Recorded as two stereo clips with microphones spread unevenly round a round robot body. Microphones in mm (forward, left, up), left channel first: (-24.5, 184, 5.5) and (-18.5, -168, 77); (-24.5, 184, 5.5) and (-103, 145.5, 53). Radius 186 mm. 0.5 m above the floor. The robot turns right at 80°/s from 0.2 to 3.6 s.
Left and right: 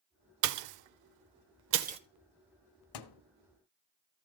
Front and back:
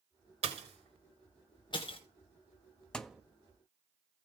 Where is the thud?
105° left, 1.0 m; by 3.2 s 125° left, 1.0 m.